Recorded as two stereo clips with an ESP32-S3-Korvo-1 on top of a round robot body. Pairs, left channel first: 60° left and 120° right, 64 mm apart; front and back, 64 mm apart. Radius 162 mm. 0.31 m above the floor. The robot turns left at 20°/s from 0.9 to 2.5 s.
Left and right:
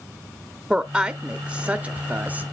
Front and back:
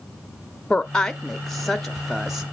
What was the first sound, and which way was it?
A woman speaking, 65° right.